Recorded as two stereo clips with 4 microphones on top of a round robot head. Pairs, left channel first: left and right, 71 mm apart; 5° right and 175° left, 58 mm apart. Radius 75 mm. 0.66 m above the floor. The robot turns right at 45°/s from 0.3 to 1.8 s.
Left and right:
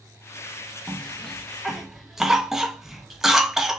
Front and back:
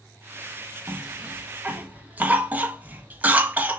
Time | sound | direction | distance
0.9 | a cough | 150° left | 1.0 m